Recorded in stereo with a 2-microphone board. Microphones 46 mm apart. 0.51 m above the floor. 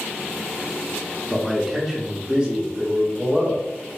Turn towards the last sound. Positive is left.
turn(degrees=-25)  # may be behind; listen again after turning